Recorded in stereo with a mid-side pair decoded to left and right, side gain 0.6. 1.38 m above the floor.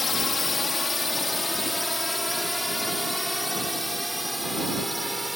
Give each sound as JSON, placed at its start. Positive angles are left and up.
{"t": 0.0, "sound": "a drone", "azimuth_deg": 25}